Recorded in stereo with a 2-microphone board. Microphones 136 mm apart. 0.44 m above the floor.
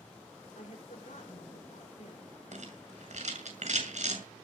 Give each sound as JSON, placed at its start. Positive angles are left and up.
{"t": 0.6, "sound": "a woman speaking", "side_deg": 65, "distance_m": 6.5}
{"t": 2.5, "sound": "a rattle", "side_deg": -60, "distance_m": 7.0}